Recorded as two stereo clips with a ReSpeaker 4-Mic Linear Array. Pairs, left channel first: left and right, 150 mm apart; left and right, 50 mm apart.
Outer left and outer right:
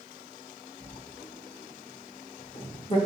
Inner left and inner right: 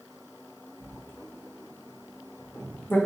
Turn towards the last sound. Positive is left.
turn(degrees=40)  # may be behind; listen again after turning